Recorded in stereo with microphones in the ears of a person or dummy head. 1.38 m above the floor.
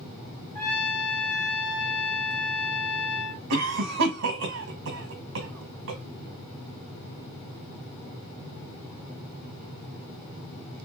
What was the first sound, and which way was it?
A trumpet, 10° left (ahead or behind).